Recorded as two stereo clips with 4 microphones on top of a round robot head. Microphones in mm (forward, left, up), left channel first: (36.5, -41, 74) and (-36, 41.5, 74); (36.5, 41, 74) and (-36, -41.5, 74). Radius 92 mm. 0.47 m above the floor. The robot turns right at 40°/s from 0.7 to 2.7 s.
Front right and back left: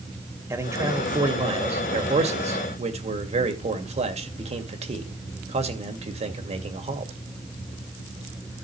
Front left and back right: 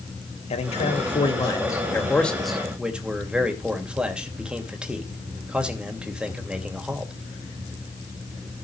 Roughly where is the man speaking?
Ahead left.